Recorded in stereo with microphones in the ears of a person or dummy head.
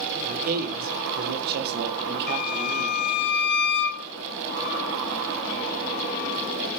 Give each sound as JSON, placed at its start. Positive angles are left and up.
{"t": 0.2, "sound": "a man speaking", "side_deg": -40, "distance_m": 3.0}
{"t": 2.3, "sound": "a violin", "side_deg": 65, "distance_m": 3.0}